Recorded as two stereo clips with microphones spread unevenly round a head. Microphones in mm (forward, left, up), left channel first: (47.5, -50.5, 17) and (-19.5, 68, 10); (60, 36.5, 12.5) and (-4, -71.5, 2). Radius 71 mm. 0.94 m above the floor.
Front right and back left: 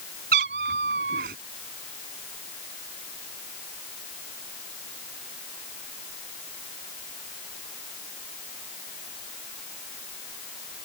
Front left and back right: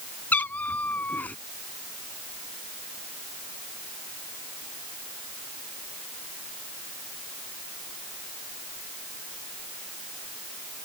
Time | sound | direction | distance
0.3 | a cat meowing | 135° left | ?